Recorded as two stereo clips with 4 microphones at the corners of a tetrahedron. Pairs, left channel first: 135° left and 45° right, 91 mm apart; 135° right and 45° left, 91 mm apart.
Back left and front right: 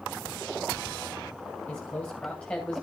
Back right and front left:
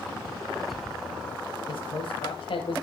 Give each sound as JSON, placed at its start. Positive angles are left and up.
{"t": 1.7, "sound": "a man speaking", "azimuth_deg": -155, "distance_m": 3.5}